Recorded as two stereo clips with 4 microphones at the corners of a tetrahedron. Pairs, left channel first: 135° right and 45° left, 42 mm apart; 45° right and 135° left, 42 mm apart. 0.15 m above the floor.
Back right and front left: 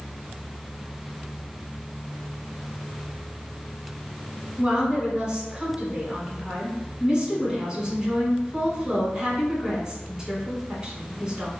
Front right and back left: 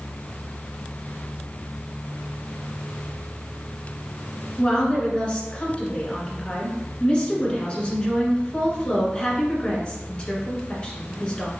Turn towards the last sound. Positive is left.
turn(degrees=-10)